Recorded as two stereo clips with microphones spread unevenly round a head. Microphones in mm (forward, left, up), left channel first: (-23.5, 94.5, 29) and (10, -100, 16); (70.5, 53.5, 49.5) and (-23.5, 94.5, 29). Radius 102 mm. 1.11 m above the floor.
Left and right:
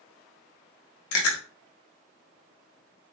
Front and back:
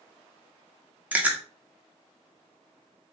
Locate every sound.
1.1 s chewing: 85° left, 0.7 m